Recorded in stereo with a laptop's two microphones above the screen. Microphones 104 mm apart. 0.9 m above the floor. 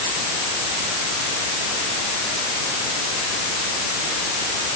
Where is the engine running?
I don't hear an engine running.